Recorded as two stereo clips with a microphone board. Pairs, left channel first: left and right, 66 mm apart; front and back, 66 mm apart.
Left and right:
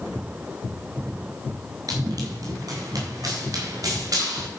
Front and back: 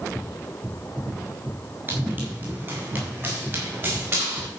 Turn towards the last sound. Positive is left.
turn(degrees=-125)